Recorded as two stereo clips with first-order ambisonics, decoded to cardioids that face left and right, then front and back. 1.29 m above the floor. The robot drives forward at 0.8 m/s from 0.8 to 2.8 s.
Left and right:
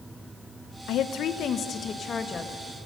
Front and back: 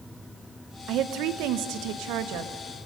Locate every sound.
0.9 s a woman speaking: 135° left, 1.0 m; by 2.9 s 165° left, 2.5 m